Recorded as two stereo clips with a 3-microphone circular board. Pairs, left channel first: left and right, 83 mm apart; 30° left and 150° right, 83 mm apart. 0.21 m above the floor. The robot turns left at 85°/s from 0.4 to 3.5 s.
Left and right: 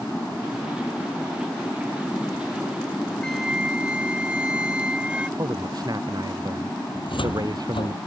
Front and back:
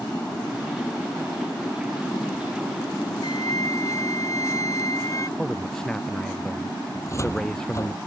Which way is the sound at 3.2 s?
10° left.